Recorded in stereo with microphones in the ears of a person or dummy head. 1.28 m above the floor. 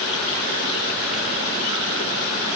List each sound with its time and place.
Only background noise.